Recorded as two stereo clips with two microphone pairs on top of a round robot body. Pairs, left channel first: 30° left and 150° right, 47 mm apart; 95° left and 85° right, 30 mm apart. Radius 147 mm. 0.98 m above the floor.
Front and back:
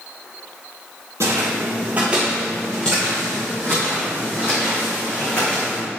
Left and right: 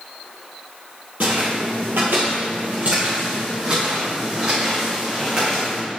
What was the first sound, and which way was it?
Footsteps, 120° right.